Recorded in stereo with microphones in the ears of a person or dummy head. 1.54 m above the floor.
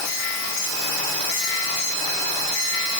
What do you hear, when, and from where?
Only background noise.